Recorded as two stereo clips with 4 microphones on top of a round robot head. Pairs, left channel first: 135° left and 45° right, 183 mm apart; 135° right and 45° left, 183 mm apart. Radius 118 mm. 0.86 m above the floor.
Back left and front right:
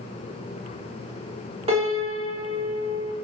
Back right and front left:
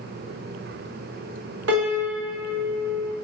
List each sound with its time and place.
1.7 s a piano: 15° left, 0.6 m